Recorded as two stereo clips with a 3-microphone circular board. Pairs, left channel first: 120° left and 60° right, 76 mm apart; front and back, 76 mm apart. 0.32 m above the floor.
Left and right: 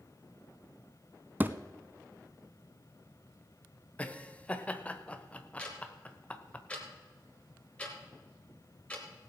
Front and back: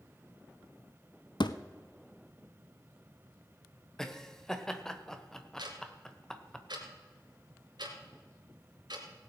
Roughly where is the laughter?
Left.